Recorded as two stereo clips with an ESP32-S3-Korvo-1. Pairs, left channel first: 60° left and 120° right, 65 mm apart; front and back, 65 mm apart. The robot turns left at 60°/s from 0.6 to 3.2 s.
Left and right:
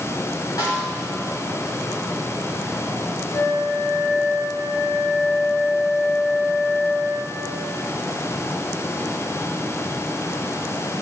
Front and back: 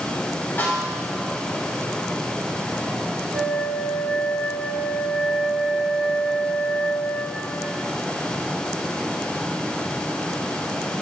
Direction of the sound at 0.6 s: 55° left.